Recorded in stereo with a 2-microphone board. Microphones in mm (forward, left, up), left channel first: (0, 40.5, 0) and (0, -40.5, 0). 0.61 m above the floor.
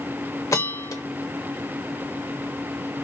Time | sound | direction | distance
0.5 | a bell | 40° left (ahead or behind) | 0.7 m